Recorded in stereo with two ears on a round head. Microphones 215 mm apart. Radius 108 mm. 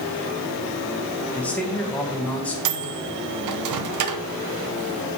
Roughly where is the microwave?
Right.